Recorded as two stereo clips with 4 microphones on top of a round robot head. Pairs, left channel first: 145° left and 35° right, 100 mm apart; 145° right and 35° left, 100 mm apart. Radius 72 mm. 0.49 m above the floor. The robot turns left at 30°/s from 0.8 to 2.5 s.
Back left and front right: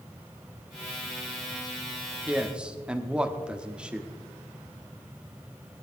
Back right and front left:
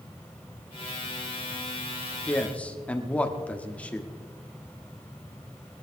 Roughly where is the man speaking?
Right.